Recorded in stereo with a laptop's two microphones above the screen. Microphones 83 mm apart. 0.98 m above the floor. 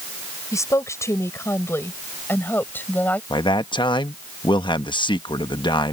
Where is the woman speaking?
40° left (ahead or behind); by 3.2 s 20° left (ahead or behind).